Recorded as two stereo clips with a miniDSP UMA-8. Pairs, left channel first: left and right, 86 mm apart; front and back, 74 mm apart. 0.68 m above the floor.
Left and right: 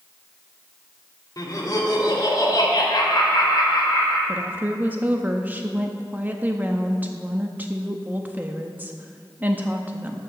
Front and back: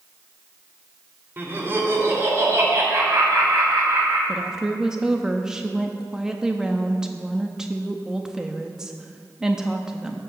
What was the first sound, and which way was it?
Laughter, 125° left.